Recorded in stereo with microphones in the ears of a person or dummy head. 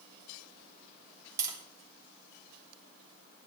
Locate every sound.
1.4 s tapping: 20° right (ahead or behind), 3.5 m